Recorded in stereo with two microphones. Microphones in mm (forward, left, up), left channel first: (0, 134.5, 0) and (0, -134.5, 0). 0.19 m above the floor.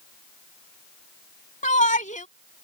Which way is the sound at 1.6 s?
30° left (ahead or behind).